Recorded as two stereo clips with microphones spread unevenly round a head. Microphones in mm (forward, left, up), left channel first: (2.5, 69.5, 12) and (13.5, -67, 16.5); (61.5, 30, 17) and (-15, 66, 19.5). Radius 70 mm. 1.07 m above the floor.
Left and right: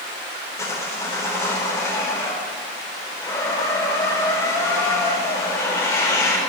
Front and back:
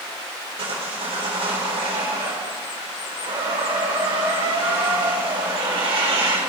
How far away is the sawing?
About 3.5 m.